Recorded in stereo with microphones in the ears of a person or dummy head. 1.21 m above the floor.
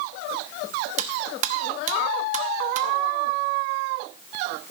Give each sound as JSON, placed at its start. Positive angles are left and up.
{"t": 1.0, "sound": "cutlery clinking", "side_deg": -45, "distance_m": 0.9}